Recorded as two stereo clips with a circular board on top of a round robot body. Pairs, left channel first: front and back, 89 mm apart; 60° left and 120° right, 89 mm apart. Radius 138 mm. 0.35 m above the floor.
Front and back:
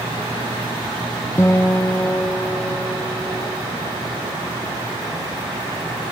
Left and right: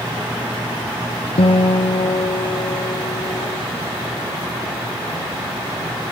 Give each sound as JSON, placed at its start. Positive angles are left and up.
{"t": 1.4, "sound": "a guitar", "azimuth_deg": 60, "distance_m": 0.8}